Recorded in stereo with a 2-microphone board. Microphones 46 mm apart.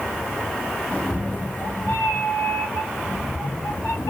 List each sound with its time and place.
0.9 s a cat meowing: 25° left (ahead or behind), 1.0 m; by 4.1 s 85° left, 1.9 m